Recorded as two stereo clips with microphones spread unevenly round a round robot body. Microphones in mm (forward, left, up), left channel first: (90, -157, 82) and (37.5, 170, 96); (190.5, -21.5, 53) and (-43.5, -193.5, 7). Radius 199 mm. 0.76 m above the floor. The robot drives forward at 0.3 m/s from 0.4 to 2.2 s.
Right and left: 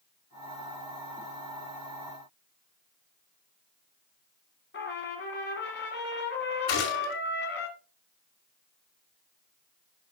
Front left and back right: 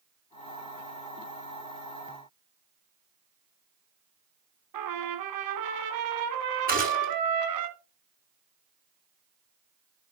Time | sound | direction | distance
4.7 | a trumpet | 145° right | 1.4 m
6.7 | a gunshot | 85° right | 4.5 m